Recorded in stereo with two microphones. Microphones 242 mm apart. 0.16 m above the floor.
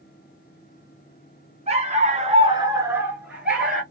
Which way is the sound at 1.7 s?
25° right (ahead or behind).